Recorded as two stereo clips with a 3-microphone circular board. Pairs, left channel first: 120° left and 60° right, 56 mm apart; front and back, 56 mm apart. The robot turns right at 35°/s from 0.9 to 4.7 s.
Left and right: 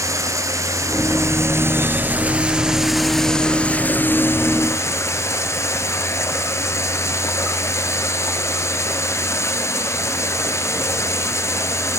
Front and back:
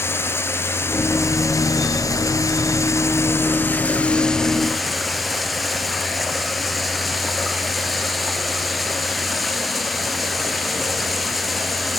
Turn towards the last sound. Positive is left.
turn(degrees=90)